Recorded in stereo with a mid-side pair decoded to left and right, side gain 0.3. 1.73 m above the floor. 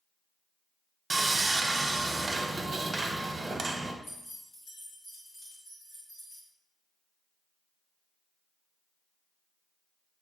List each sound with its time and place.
1.1 s sawing: 40° right, 0.9 m
4.0 s keys jangling: 70° left, 2 m